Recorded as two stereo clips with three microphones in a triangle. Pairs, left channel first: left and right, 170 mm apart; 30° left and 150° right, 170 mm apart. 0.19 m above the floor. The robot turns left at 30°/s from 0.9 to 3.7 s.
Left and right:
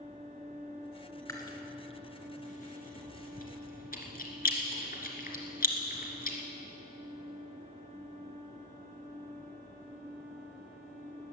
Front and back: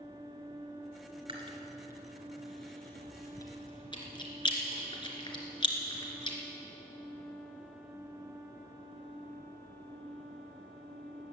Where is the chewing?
160° left, 2.5 m; by 6.4 s 85° left, 2.5 m.